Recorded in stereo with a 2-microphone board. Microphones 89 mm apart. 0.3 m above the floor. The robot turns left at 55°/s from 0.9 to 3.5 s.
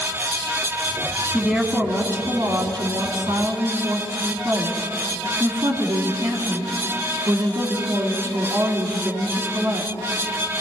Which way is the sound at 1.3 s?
10° right.